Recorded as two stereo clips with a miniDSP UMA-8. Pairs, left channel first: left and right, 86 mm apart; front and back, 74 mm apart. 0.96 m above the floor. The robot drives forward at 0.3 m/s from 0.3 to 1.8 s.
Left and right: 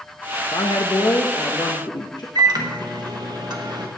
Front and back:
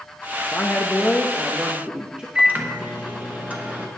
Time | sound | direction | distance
0.5 | a woman speaking | 70° left | 0.7 m
2.4 | a microwave | 115° right | 1.1 m